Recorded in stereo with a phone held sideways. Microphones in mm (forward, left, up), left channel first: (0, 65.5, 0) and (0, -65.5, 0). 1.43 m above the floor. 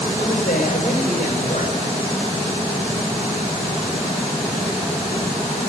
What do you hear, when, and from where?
0.2 s a man speaking: 75° left (ahead or behind), 6 m